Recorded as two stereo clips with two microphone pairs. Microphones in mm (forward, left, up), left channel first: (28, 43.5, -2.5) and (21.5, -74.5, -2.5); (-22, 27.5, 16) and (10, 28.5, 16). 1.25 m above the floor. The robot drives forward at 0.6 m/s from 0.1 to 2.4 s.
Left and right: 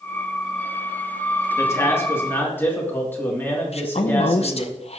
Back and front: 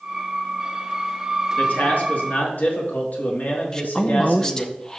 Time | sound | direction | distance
1.6 | a man speaking | 150° left | 1.6 m
3.7 | a woman speaking | 110° left | 0.5 m